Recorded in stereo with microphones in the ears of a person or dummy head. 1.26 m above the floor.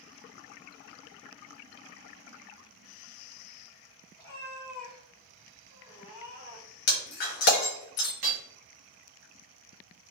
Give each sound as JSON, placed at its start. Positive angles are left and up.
{"t": 4.2, "sound": "a cat meowing", "side_deg": 20, "distance_m": 1.6}
{"t": 6.9, "sound": "breaking glass", "side_deg": 55, "distance_m": 1.0}
{"t": 8.2, "sound": "hammering", "side_deg": -35, "distance_m": 0.5}